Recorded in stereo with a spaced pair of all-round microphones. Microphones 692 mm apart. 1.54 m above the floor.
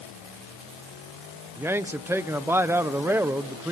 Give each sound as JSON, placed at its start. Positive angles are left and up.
{"t": 1.6, "sound": "a man speaking", "side_deg": -5, "distance_m": 1.0}